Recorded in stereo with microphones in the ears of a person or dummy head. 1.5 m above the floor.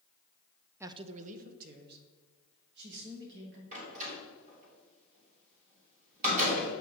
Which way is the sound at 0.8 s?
15° right (ahead or behind).